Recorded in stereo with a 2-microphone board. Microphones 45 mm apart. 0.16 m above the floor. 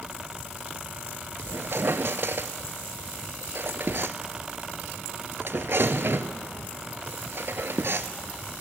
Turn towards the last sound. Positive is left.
turn(degrees=-60)  # may be behind; listen again after turning